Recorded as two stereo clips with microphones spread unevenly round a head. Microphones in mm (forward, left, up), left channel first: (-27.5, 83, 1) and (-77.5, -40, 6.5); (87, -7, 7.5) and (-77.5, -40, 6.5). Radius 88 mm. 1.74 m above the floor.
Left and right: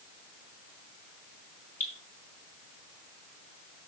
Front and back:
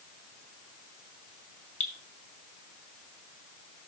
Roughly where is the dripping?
Ahead.